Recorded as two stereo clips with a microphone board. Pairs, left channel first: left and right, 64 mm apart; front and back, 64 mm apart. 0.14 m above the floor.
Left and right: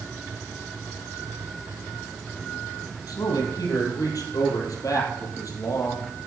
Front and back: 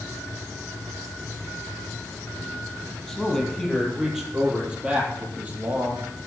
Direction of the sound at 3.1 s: 85° left.